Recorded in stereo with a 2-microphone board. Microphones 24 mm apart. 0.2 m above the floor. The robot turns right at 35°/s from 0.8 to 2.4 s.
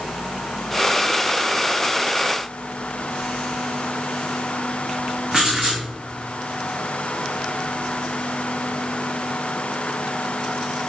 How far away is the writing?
About 1.4 m.